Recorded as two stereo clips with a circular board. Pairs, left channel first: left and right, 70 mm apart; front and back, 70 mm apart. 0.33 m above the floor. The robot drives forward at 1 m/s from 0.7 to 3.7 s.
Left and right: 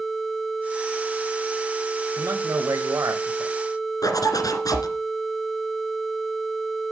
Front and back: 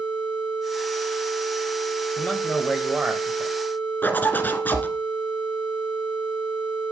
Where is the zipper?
65° left, 1.5 m.